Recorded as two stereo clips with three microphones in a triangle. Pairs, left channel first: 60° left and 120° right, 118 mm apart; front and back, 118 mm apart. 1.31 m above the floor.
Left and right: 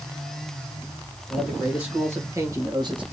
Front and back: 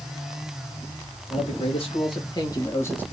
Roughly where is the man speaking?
Ahead right.